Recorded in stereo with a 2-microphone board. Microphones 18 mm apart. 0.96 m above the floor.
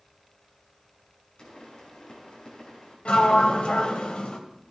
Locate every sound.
1.4 s a pop: 50° left (ahead or behind), 6 m
3.0 s a sliding door: 65° left (ahead or behind), 1.8 m